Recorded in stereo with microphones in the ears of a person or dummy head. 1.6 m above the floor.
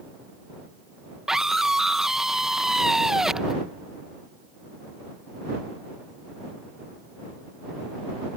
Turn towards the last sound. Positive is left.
turn(degrees=-5)  # may be behind; listen again after turning